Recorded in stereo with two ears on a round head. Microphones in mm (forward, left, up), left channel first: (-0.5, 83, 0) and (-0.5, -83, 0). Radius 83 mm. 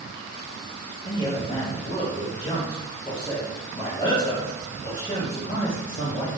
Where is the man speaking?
30° left (ahead or behind), 0.9 m.